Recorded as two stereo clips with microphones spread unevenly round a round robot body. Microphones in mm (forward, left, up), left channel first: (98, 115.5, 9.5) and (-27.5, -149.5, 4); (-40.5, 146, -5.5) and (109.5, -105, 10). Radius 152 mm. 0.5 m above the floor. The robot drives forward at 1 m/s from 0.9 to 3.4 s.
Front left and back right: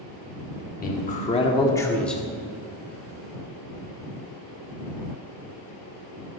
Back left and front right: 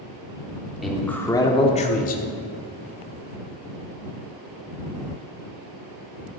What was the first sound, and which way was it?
A man speaking, 35° left.